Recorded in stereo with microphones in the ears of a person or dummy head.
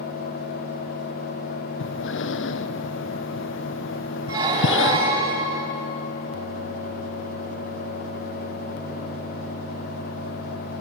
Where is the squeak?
25° right (ahead or behind), 3.5 m.